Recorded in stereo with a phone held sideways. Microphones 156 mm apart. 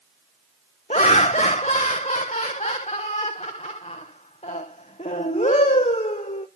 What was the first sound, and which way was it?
Laughter, 45° left (ahead or behind).